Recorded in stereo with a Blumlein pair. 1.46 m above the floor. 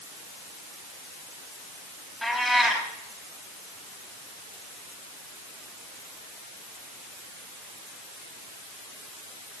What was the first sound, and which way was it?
A cat meowing, straight ahead.